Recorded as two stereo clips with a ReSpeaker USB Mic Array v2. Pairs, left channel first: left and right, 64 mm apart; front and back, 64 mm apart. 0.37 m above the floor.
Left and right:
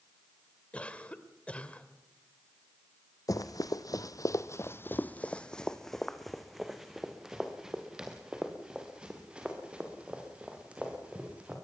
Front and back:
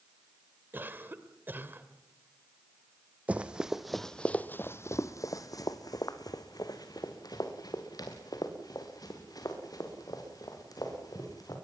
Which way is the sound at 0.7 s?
150° left.